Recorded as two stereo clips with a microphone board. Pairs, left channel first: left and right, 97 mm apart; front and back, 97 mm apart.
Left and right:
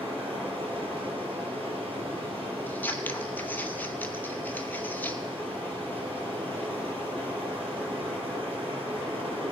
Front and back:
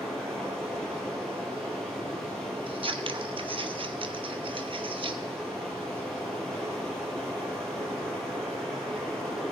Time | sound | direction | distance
0.0 | running water | 85° right | 3.5 m
2.7 | scissors | 160° left | 0.8 m